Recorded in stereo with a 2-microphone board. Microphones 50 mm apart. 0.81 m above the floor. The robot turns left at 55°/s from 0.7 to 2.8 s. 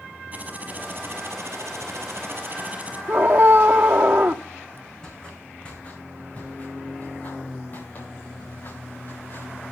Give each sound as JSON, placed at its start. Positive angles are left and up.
{"t": 0.3, "sound": "typing on a keyboard", "azimuth_deg": -35, "distance_m": 4.5}
{"t": 3.1, "sound": "a scream", "side_deg": -40, "distance_m": 1.9}
{"t": 5.0, "sound": "footsteps", "side_deg": 15, "distance_m": 4.0}